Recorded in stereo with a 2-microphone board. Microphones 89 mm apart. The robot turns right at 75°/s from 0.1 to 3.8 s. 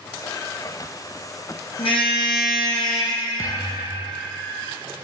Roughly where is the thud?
Ahead left.